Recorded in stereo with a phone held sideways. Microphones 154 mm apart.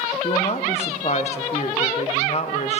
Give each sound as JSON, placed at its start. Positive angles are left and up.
{"t": 0.2, "sound": "a woman speaking", "side_deg": 45, "distance_m": 0.7}